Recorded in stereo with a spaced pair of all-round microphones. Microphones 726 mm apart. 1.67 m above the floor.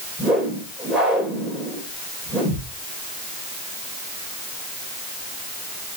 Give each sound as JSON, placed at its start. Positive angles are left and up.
{"t": 0.2, "sound": "a whoosh", "side_deg": 0, "distance_m": 4.0}